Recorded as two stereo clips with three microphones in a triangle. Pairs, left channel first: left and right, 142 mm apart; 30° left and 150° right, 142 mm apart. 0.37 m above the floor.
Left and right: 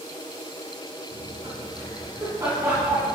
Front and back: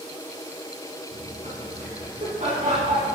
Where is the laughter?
145° right, 4.5 m; by 3.1 s 165° right, 3 m.